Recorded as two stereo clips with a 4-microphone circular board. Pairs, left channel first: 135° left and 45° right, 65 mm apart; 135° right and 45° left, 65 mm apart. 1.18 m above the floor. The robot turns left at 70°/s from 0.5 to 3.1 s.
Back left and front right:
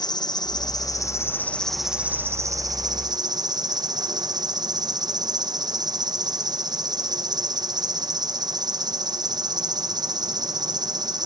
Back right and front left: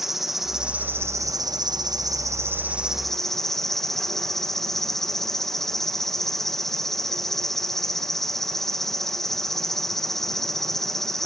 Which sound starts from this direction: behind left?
An insect, at 0.0 s.